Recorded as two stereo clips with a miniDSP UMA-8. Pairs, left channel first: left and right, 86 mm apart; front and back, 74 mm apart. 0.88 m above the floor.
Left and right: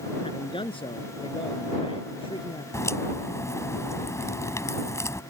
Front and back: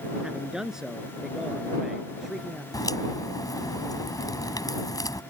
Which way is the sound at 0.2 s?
100° left.